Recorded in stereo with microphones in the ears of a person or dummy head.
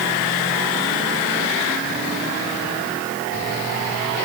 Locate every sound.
Only background noise.